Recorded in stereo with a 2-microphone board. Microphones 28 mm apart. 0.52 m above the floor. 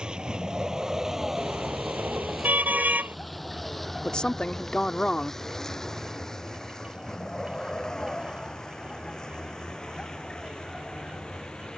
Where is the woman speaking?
30° left (ahead or behind).